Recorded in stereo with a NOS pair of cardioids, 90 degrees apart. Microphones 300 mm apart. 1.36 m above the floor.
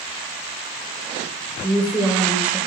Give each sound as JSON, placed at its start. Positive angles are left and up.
{"t": 1.6, "sound": "a woman speaking", "azimuth_deg": -5, "distance_m": 1.4}